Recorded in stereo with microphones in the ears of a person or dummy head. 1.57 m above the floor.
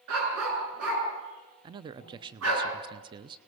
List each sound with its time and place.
0.1 s a dog barking: 80° right, 7.5 m
1.6 s a man speaking: 25° right (ahead or behind), 0.6 m